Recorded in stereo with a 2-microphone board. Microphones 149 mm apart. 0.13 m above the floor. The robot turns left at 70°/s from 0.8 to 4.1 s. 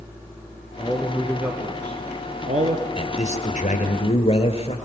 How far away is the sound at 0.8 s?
About 1.6 m.